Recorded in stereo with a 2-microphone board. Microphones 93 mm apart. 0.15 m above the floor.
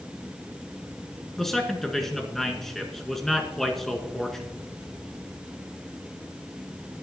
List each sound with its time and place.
1.4 s a man speaking: 5° left (ahead or behind), 1.7 m